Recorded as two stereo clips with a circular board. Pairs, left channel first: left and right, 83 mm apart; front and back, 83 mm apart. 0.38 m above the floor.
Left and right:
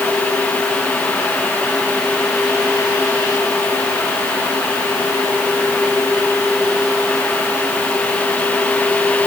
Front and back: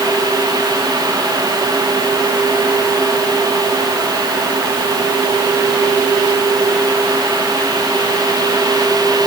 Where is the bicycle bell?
I don't hear a bicycle bell.